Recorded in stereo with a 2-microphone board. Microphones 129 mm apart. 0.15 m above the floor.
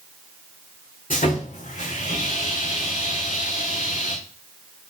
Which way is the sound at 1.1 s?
80° left.